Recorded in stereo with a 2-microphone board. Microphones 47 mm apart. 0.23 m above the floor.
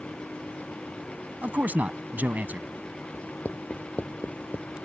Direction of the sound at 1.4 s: 40° right (ahead or behind).